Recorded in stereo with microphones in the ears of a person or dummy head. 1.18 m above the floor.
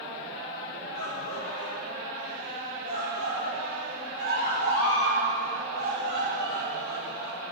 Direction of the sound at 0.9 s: 60° left (ahead or behind).